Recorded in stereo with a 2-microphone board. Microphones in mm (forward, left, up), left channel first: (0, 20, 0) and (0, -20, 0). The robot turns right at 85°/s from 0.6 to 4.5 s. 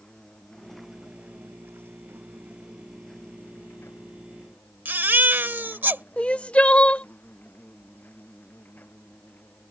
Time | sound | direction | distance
0.0 | an insect | 165° left | ?
4.8 | a baby crying | 60° right (ahead or behind) | ?
6.2 | crying | 35° left (ahead or behind) | ?